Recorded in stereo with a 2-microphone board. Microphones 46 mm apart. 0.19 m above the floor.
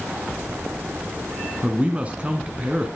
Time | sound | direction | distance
1.6 | a man speaking | 30° right (ahead or behind) | 2 m